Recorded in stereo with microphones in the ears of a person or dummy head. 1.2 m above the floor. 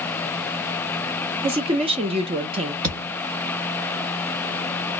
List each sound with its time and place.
1.4 s a woman speaking: 25° right (ahead or behind), 0.5 m
2.8 s a thud: 30° right (ahead or behind), 0.8 m